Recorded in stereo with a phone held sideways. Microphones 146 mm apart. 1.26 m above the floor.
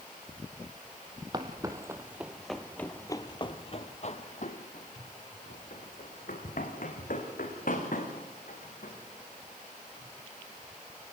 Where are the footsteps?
30° right (ahead or behind), 2 m; by 10.1 s 65° left (ahead or behind), 7.5 m.